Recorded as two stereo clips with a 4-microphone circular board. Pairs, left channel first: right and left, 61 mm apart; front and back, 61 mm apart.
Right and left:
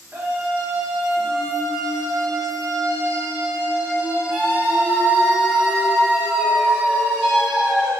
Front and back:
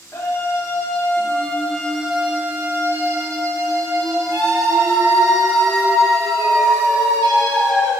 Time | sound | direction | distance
0.1 | a scream | 30° left | 1.3 m